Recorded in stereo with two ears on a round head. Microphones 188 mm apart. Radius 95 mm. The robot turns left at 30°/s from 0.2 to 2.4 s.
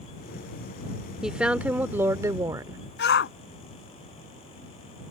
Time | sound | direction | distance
1.2 | a woman speaking | 5° right (ahead or behind) | ?
3.0 | a shout | 50° left (ahead or behind) | ?